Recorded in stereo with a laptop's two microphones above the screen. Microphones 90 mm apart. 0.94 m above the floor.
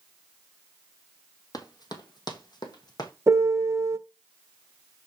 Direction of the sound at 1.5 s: 50° left (ahead or behind).